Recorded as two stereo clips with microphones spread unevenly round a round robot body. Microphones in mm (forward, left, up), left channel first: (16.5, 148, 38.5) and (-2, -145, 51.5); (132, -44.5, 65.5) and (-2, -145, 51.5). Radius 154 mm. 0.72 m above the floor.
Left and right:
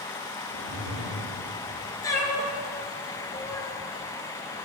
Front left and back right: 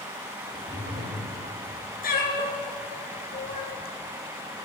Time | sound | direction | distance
0.4 | a whoosh | 80° right | 6 m
2.0 | a cat meowing | 5° left | 2.5 m